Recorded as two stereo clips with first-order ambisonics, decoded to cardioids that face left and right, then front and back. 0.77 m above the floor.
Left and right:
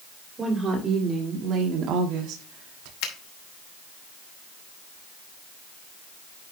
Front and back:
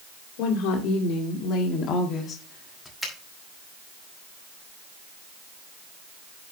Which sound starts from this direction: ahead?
A woman speaking, at 0.4 s.